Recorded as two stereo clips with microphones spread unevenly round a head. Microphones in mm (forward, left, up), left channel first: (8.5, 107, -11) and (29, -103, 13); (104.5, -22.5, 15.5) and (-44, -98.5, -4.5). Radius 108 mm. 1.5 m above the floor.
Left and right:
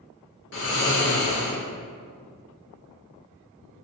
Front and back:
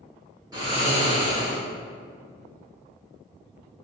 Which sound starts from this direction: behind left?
Snoring, at 0.5 s.